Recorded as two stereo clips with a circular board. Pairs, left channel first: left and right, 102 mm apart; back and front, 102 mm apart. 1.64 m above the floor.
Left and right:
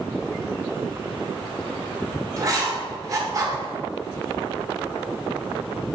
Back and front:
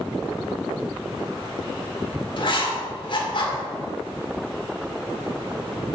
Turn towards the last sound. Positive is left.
turn(degrees=-145)